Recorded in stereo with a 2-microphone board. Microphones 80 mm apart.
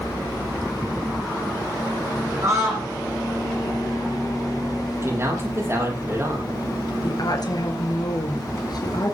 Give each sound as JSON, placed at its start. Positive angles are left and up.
{"t": 2.4, "sound": "a scream", "side_deg": -40, "distance_m": 9.5}
{"t": 5.0, "sound": "a man speaking", "side_deg": -35, "distance_m": 6.0}
{"t": 7.0, "sound": "a woman speaking", "side_deg": 55, "distance_m": 2.5}